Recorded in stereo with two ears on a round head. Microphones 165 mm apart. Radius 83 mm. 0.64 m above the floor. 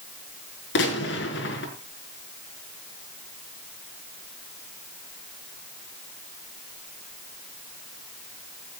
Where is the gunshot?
75° left (ahead or behind), 5.5 m.